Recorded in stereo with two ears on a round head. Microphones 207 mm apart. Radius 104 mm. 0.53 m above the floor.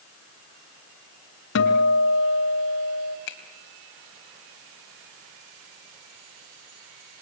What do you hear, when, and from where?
1.6 s a guitar: 55° left (ahead or behind), 2.5 m
3.3 s a finger snap: 55° left (ahead or behind), 3 m